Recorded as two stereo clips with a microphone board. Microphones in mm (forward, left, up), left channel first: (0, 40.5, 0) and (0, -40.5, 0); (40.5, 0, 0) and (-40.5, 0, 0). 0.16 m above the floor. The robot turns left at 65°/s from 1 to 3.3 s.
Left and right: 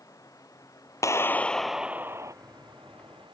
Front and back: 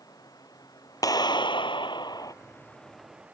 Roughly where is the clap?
Ahead left.